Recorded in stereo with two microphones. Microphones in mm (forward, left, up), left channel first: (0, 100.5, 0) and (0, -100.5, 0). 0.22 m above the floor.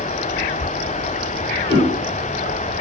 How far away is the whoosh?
About 0.7 m.